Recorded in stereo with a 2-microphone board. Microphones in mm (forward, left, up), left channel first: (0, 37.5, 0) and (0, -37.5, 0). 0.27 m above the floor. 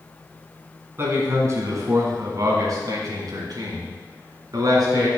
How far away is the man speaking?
About 2.5 m.